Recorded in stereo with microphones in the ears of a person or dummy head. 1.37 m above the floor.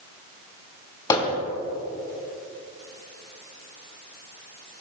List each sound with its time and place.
1.1 s hammering: 20° left (ahead or behind), 3.5 m